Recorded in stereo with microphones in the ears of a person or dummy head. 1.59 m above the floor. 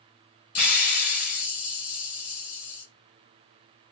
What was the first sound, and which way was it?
A hiss, 45° left (ahead or behind).